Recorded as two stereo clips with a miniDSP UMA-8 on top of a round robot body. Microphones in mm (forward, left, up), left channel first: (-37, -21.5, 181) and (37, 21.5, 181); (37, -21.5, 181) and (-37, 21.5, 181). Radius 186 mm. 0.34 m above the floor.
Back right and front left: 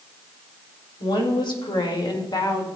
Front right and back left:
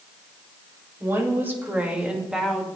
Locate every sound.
1.0 s a woman speaking: 155° right, 2.5 m; by 2.7 s 120° right, 2.0 m